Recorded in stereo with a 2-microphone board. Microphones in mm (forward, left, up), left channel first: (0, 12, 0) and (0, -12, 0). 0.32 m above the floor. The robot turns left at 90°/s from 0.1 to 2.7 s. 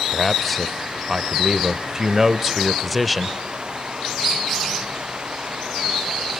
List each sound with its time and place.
0.1 s a man speaking: 15° left (ahead or behind), 0.8 m; by 3.4 s centre (ahead or behind), 0.8 m